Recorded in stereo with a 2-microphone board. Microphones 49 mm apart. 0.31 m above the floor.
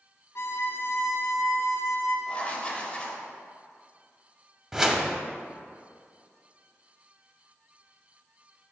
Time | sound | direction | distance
0.3 | a violin | 70° left (ahead or behind) | 1.0 m
2.3 | writing | 25° left (ahead or behind) | 1.0 m
4.7 | a whoosh | 15° right (ahead or behind) | 0.6 m